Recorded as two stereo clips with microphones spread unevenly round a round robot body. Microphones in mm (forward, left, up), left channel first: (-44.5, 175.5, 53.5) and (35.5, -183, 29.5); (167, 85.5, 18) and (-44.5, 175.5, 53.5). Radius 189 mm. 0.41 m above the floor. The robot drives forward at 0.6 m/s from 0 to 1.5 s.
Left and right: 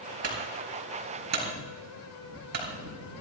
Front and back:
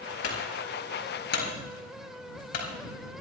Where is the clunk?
25° right, 5 m.